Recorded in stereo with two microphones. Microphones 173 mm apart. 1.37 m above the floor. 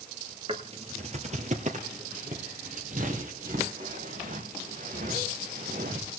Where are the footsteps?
35° right (ahead or behind), 1.7 m; by 6.1 s 55° right (ahead or behind), 5 m.